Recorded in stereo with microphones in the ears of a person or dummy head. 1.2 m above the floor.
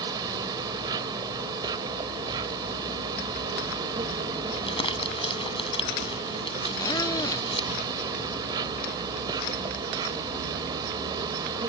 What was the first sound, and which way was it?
An insect, 20° right (ahead or behind).